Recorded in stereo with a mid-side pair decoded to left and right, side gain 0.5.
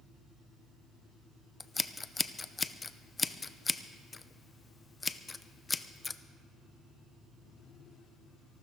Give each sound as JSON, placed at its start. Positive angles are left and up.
{"t": 1.6, "sound": "scissors", "azimuth_deg": 25, "distance_m": 0.6}